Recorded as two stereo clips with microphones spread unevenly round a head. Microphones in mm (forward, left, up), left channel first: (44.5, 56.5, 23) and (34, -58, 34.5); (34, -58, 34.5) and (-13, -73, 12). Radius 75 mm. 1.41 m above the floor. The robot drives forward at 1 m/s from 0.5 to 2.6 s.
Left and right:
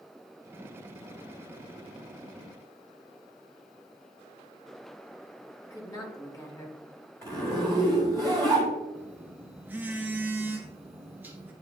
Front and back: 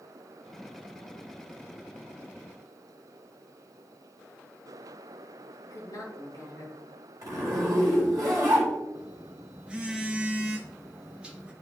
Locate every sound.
5.6 s a woman speaking: 30° left, 2.5 m
7.2 s a zipper: 160° left, 2.5 m
8.9 s a phone buzzing: 60° right, 0.7 m